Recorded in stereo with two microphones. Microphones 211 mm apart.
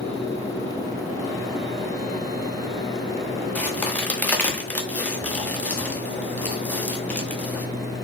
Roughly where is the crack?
Centre.